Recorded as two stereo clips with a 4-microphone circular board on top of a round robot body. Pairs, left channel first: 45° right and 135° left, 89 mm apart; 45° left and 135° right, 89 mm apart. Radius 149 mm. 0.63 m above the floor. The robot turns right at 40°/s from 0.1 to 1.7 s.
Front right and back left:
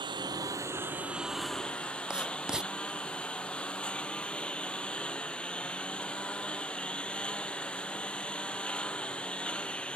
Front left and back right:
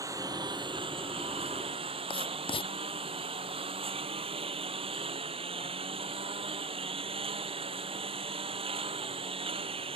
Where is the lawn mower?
170° left; by 10.0 s 125° right.